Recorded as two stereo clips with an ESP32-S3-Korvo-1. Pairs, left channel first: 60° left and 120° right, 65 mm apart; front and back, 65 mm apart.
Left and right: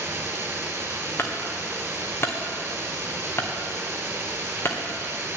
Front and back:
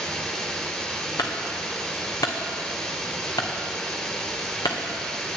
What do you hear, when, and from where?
0.0 s running water: 75° right, 1.5 m
1.2 s a clunk: 10° left, 1.7 m